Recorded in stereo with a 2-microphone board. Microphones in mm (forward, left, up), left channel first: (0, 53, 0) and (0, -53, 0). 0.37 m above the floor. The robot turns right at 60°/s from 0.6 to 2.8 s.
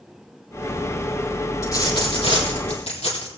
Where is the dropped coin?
30° left, 4 m; by 3.3 s 100° left, 4 m.